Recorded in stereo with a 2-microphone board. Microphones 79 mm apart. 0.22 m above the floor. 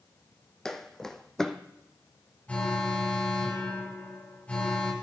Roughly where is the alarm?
Centre.